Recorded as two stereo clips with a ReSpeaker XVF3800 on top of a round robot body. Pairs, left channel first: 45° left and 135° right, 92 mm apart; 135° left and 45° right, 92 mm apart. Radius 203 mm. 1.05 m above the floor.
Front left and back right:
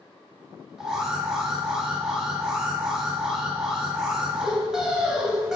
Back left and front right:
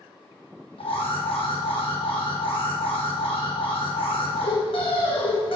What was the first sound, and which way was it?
An alarm, 140° left.